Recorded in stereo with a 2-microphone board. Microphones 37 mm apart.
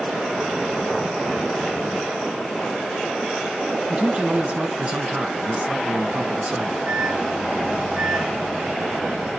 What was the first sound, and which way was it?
A man speaking, 35° right (ahead or behind).